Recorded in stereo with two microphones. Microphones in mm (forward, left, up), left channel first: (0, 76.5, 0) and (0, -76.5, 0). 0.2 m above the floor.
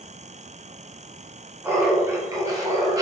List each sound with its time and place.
1.6 s laughter: 15° right (ahead or behind), 1.8 m; by 3.0 s 25° right (ahead or behind), 1.3 m